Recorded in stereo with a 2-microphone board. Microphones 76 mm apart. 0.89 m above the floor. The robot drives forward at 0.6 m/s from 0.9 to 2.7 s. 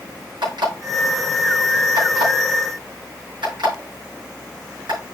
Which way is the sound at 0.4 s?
80° right.